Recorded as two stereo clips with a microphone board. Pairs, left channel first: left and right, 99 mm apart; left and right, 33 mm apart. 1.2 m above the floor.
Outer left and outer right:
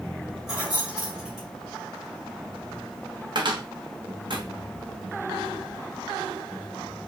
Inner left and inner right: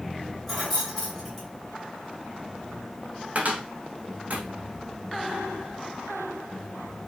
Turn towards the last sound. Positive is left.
turn(degrees=-55)  # may be behind; listen again after turning